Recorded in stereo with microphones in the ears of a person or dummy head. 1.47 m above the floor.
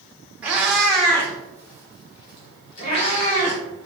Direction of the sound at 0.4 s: 15° right (ahead or behind).